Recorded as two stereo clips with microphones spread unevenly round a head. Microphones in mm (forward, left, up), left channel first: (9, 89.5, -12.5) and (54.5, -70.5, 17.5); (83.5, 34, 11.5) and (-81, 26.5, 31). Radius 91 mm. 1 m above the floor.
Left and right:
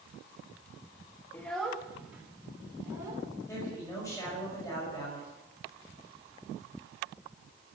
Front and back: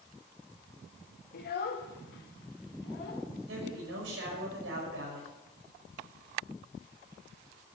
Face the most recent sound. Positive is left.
turn(degrees=180)